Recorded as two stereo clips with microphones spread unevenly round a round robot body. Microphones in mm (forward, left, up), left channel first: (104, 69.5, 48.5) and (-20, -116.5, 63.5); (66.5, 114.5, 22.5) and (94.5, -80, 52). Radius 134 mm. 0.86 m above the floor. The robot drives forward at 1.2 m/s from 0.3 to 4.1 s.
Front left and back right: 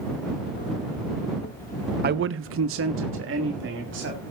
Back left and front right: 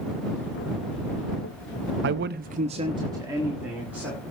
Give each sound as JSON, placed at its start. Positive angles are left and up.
{"t": 2.0, "sound": "a man speaking", "azimuth_deg": -85, "distance_m": 0.7}